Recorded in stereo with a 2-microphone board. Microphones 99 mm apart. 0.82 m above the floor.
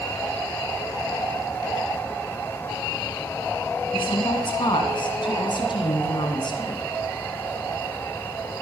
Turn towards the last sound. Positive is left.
turn(degrees=50)  # may be behind; listen again after turning